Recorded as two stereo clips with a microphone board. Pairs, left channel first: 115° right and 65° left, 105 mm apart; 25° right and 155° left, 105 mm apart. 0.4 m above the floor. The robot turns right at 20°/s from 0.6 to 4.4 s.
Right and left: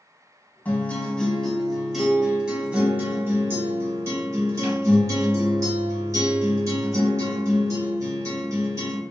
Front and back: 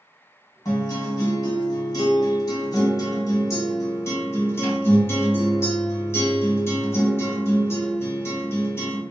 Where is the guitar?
50° right, 1.3 m; by 9.0 s 25° left, 1.3 m.